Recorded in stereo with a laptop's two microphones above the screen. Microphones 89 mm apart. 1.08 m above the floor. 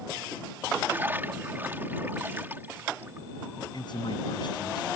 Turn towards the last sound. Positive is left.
turn(degrees=55)  # may be behind; listen again after turning